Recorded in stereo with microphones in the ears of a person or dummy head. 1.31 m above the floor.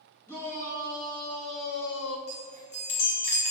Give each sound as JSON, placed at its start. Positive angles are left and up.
{"t": 0.3, "sound": "a shout", "side_deg": 15, "distance_m": 1.4}
{"t": 2.3, "sound": "a chime", "side_deg": 50, "distance_m": 1.6}